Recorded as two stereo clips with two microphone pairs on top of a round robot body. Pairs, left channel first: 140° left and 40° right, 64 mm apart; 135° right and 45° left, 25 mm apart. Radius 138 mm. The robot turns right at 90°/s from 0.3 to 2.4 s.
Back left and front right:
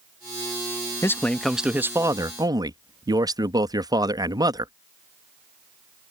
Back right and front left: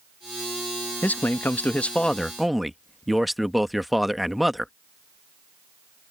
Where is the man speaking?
170° right; by 4.7 s 45° right.